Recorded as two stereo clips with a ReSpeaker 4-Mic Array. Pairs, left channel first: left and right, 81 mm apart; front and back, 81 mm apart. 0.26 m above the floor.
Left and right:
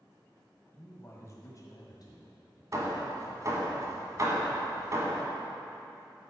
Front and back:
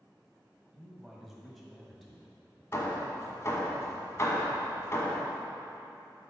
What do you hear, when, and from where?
0.7 s a man speaking: 105° left, 1.5 m; by 2.6 s 85° left, 2.5 m
2.7 s hammering: 50° right, 1.5 m